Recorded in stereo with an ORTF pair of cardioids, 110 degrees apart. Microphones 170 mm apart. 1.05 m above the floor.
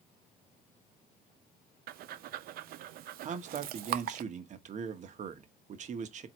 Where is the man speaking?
50° right, 1.0 m.